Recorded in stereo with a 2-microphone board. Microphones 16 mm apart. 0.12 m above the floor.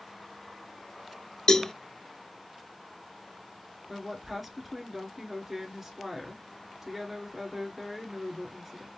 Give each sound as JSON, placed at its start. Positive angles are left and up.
{"t": 1.5, "sound": "a cowbell", "side_deg": 50, "distance_m": 0.6}
{"t": 3.9, "sound": "a woman speaking", "side_deg": -10, "distance_m": 1.3}